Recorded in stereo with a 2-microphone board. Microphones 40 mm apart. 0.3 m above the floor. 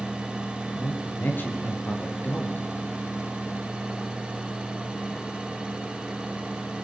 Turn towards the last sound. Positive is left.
turn(degrees=60)  # may be behind; listen again after turning